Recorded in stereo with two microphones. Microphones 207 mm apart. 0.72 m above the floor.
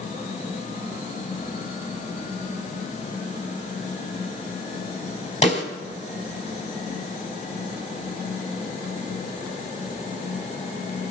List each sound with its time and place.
5.4 s a snare drum: 35° left (ahead or behind), 3.5 m